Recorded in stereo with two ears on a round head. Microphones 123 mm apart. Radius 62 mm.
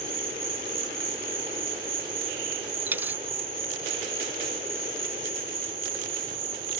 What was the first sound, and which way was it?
An insect, 45° right (ahead or behind).